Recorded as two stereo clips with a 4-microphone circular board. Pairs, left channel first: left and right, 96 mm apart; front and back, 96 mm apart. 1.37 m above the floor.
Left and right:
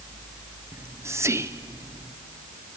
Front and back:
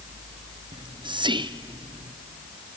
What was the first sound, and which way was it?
Whispering, 150° right.